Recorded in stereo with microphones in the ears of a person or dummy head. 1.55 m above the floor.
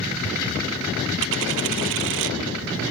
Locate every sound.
1.2 s a dropped coin: 60° right (ahead or behind)